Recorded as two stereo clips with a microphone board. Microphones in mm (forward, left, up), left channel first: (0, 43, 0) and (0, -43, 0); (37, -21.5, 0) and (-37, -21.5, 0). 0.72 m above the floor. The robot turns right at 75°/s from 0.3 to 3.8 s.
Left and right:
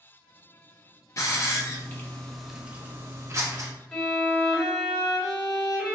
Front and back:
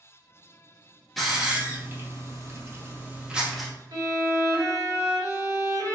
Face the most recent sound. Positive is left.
turn(degrees=175)